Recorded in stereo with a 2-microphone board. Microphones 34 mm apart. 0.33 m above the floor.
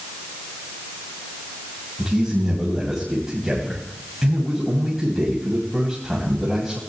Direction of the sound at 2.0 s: 10° right (ahead or behind).